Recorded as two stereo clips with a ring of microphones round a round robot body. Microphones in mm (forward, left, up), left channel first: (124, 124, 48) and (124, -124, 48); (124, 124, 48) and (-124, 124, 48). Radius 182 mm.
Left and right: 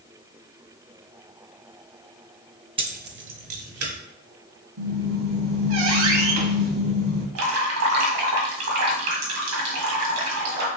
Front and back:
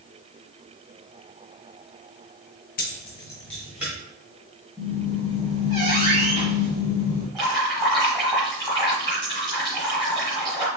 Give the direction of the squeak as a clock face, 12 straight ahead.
4 o'clock.